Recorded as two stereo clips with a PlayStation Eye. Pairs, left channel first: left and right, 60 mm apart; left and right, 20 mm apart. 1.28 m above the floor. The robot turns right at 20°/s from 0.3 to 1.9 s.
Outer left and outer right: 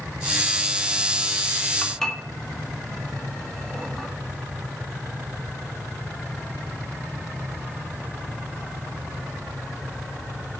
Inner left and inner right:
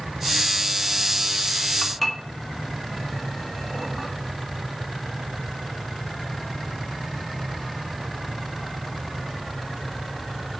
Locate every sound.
1.8 s dishes clattering: 10° left (ahead or behind), 1.7 m